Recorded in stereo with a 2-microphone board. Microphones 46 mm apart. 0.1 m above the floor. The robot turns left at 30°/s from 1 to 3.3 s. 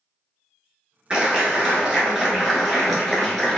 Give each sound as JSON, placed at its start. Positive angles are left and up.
{"t": 1.1, "sound": "a clap", "azimuth_deg": -135, "distance_m": 1.5}